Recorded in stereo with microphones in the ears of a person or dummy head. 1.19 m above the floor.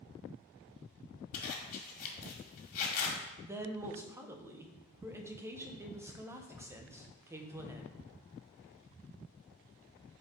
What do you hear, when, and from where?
1.3 s a zipper: 45° left (ahead or behind), 1.8 m
3.4 s a woman speaking: 10° right (ahead or behind), 0.8 m